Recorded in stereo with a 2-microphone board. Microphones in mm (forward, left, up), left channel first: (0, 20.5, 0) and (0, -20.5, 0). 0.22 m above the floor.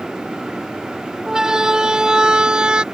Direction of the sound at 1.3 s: 15° right (ahead or behind).